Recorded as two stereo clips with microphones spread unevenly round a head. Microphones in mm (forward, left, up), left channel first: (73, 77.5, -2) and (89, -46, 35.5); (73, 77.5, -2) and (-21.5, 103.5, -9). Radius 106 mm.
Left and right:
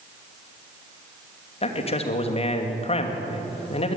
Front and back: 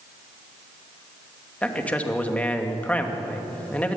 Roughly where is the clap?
No clap in this recording.